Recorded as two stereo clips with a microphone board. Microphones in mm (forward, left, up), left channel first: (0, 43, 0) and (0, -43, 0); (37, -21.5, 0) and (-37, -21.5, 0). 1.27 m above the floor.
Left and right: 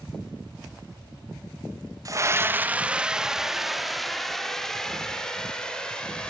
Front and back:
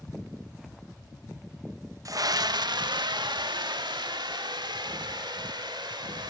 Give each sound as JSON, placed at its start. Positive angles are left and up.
{"t": 2.0, "sound": "a scream", "azimuth_deg": -135, "distance_m": 1.0}